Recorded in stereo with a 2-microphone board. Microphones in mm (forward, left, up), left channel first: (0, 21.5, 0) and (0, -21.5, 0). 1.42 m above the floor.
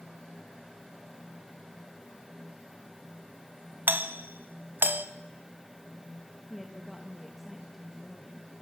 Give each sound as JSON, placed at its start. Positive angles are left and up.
{"t": 3.9, "sound": "a doorbell", "side_deg": -55, "distance_m": 1.6}
{"t": 6.5, "sound": "a woman speaking", "side_deg": 0, "distance_m": 2.5}